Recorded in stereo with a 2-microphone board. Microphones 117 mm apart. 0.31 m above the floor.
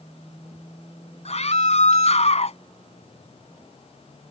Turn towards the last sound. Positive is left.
turn(degrees=65)  # may be behind; listen again after turning